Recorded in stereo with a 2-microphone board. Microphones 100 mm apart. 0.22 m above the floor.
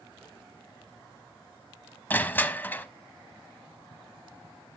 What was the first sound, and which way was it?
Crushing, 20° left (ahead or behind).